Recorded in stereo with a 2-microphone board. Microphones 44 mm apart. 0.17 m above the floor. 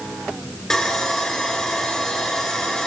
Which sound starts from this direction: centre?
Sawing, at 0.7 s.